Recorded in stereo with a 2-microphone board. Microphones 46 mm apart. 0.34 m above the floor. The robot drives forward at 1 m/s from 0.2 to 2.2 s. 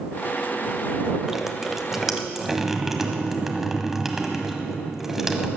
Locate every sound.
1.2 s dripping: 10° right (ahead or behind), 0.6 m; by 5.5 s 5° right (ahead or behind), 1.3 m